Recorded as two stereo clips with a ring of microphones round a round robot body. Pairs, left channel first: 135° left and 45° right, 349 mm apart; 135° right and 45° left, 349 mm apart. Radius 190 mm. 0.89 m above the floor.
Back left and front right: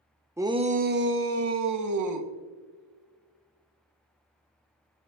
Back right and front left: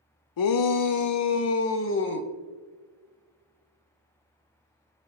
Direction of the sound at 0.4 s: 125° right.